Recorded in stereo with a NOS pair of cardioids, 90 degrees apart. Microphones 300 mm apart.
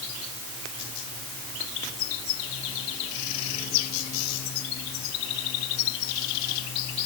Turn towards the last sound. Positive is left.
No sound to turn to.